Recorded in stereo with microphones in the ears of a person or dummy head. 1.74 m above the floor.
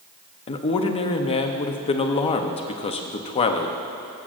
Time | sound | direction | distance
0.5 | a man speaking | 30° left (ahead or behind) | 0.6 m